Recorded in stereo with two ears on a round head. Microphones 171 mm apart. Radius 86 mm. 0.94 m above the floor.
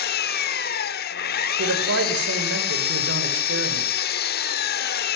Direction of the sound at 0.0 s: 55° left (ahead or behind).